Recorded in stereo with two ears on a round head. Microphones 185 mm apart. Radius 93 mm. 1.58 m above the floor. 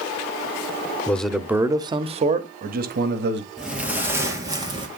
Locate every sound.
1.1 s a man speaking: 10° left (ahead or behind), 0.8 m; by 3.5 s 55° right (ahead or behind), 1.3 m
3.6 s footsteps: centre (ahead or behind), 1.9 m; by 4.9 s 25° right (ahead or behind), 2 m